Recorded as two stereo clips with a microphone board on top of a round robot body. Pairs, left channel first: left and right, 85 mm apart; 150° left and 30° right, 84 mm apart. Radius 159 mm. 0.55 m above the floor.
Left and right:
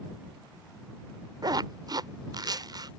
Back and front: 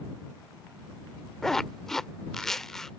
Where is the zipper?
125° right.